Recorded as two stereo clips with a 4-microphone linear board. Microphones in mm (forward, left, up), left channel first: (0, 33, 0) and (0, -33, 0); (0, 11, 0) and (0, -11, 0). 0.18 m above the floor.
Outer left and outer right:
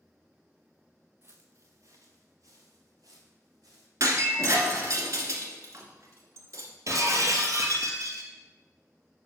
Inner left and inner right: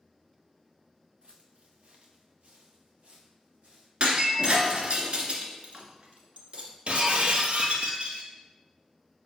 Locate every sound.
1.2 s footsteps: 40° right (ahead or behind), 0.8 m; by 3.9 s 75° right (ahead or behind), 3 m
4.0 s breaking glass: 60° right (ahead or behind), 1.2 m
6.9 s breaking glass: 60° right (ahead or behind), 1.1 m